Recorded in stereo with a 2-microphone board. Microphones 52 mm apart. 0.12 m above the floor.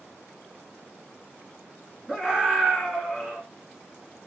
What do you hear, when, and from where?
2.1 s a scream: 15° right (ahead or behind), 1.1 m